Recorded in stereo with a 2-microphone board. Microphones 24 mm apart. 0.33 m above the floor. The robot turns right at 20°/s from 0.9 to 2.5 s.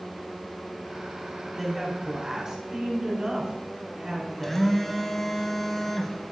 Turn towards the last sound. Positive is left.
turn(degrees=10)  # may be behind; listen again after turning